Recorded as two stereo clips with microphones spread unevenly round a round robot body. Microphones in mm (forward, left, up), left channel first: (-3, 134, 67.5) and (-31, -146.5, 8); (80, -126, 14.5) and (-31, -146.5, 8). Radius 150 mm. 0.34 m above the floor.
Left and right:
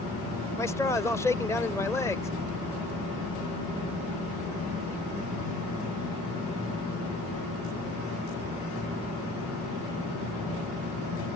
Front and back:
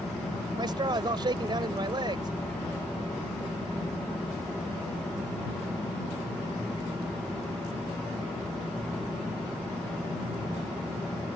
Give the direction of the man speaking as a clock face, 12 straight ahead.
6 o'clock.